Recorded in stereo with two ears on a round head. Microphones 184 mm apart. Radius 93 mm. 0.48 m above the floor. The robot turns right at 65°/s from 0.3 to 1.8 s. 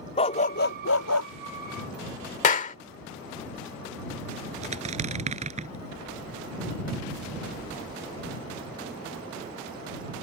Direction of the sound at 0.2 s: 30° left.